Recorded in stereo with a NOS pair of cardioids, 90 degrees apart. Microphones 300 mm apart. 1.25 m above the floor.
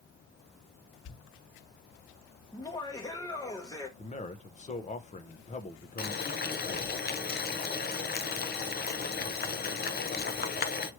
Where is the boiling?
35° left, 0.7 m.